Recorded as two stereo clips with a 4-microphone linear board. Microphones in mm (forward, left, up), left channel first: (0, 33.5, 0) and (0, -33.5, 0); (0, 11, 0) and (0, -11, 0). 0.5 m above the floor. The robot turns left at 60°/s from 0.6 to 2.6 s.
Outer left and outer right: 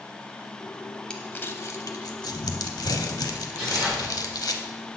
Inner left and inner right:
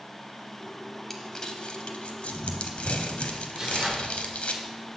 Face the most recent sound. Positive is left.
turn(degrees=-25)  # may be behind; listen again after turning